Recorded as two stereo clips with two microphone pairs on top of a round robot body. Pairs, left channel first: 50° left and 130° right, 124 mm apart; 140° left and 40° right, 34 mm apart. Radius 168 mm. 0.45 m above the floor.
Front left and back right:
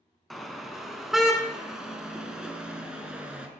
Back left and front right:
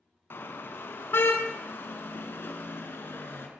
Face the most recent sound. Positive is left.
turn(degrees=150)